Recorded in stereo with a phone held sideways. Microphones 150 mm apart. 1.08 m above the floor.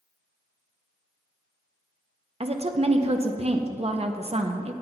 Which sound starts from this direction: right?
A woman speaking, at 2.4 s.